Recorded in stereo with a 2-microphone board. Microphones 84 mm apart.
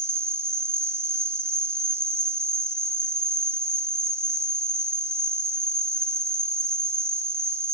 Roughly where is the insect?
Right.